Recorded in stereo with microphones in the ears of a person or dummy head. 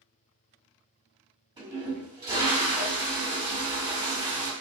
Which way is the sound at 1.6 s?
25° right (ahead or behind).